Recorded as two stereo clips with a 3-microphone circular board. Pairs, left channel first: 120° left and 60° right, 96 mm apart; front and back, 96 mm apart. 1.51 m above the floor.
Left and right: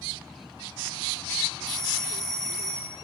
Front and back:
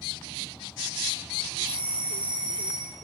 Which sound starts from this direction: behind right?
A doorbell, at 1.7 s.